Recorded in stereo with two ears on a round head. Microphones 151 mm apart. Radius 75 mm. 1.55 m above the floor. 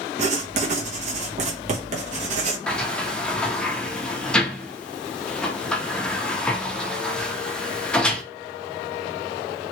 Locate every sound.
0.2 s writing: 40° right (ahead or behind), 1.0 m
2.7 s a sliding door: 5° left (ahead or behind), 0.6 m